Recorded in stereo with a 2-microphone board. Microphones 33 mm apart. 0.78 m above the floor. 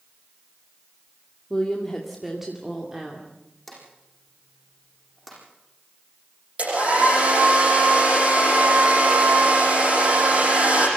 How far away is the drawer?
About 9 m.